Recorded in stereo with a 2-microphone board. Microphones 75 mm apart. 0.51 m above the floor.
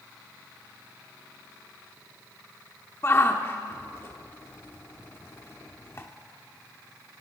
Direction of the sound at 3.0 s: 35° left (ahead or behind).